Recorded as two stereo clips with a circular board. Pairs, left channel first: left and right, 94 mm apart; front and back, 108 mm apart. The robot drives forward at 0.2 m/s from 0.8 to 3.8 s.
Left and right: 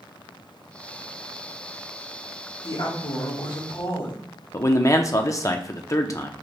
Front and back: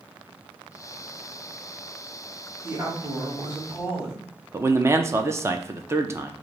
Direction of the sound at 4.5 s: 125° left.